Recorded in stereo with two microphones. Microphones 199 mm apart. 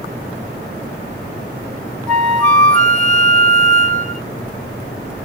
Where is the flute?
5° left (ahead or behind), 0.8 m.